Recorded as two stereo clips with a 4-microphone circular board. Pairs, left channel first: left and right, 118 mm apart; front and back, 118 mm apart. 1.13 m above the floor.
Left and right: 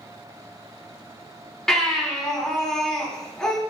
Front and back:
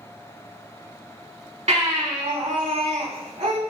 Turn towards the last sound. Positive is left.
turn(degrees=175)